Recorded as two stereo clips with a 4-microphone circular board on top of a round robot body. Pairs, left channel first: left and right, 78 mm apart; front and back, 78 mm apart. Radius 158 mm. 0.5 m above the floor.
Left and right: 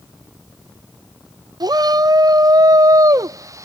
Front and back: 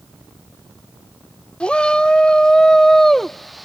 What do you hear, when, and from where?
1.6 s a shout: 75° right; by 3.6 s 90° right